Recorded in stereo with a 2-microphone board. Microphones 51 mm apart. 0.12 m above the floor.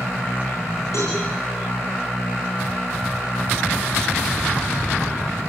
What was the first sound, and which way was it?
A cowbell, 75° left (ahead or behind).